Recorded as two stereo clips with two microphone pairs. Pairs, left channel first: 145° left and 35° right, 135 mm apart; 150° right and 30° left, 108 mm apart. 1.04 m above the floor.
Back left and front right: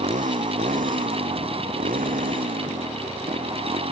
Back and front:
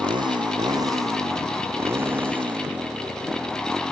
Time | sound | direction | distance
0.0 | a motorcycle | 10° right | ?